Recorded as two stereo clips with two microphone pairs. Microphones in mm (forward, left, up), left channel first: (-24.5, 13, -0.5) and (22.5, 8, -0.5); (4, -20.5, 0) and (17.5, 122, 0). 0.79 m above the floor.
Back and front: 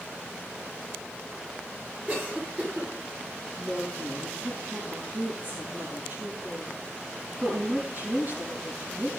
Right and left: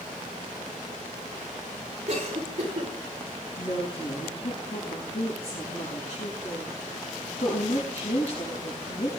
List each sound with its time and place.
2.1 s a cough: 45° left, 7.5 m
3.6 s a woman speaking: 55° right, 7 m